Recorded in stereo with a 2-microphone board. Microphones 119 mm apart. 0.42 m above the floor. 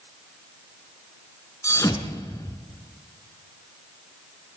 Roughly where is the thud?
Left.